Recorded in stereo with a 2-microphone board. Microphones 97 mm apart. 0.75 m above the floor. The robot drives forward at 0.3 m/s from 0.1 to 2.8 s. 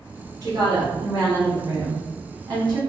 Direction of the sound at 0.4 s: 40° right (ahead or behind).